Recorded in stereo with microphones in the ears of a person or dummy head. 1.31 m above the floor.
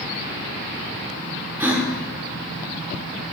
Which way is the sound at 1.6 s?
10° right (ahead or behind).